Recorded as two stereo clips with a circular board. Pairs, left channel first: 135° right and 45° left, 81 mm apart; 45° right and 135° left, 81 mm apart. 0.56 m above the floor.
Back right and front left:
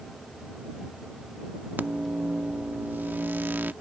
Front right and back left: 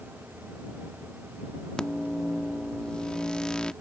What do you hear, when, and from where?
1.8 s a microwave: 20° left